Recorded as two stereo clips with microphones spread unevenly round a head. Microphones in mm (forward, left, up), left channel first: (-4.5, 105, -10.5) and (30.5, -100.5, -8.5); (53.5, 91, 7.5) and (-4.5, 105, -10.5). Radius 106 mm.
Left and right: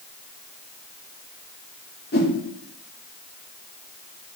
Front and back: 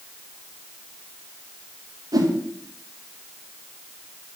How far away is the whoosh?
About 2 m.